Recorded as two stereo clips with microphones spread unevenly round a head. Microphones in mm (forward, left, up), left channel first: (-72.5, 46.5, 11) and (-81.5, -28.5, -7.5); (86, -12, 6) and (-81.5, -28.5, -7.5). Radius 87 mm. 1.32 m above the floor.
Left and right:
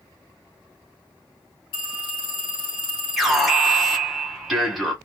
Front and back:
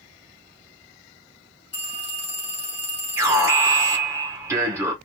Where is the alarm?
145° right, 1.1 m.